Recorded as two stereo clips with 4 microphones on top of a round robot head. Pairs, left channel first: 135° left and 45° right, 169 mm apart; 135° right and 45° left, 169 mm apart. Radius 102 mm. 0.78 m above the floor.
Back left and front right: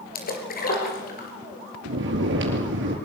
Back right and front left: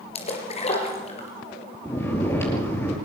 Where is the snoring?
55° right, 5 m.